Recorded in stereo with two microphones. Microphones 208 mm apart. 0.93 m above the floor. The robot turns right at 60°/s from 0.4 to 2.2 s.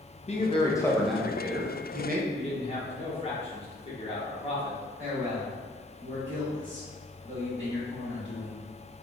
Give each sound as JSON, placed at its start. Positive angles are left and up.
{"t": 0.3, "sound": "a man speaking", "azimuth_deg": 140, "distance_m": 0.6}
{"t": 2.3, "sound": "a man speaking", "side_deg": 30, "distance_m": 0.8}
{"t": 5.0, "sound": "a man speaking", "side_deg": -75, "distance_m": 1.7}